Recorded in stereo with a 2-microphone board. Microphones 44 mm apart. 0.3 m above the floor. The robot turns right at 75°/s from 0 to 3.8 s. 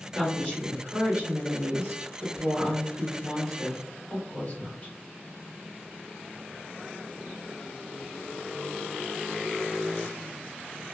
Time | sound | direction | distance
0.1 | a woman speaking | 130° left | 1.7 m